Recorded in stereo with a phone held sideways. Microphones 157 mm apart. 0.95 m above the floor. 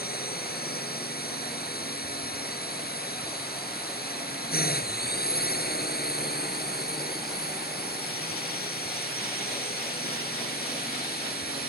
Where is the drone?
75° left (ahead or behind).